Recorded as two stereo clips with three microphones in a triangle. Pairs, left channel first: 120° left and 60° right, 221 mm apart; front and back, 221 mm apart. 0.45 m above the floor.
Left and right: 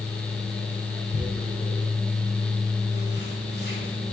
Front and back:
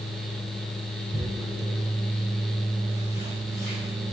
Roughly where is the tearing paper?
Behind left.